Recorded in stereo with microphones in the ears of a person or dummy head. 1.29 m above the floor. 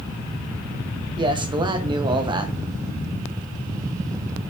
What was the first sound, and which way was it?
A man speaking, 25° right (ahead or behind).